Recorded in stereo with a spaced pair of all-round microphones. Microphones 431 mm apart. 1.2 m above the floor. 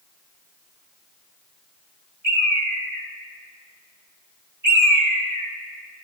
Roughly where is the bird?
Right.